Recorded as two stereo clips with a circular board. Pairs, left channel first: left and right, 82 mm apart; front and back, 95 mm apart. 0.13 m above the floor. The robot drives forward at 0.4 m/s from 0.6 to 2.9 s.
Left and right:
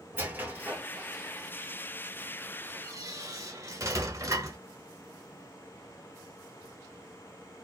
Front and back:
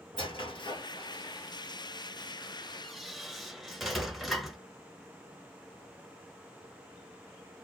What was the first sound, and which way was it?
A squeak, 25° right.